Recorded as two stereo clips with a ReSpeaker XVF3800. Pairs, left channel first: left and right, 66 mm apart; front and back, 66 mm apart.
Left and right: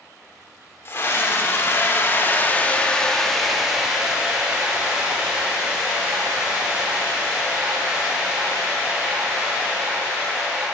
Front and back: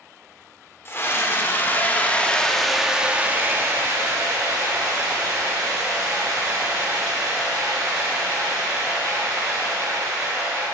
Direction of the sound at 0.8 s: 40° left.